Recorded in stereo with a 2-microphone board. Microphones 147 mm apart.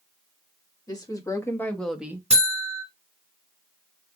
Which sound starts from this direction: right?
A buzzer, at 2.3 s.